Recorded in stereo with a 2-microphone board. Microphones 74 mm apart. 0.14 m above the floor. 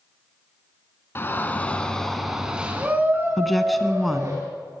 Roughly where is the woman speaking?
Centre.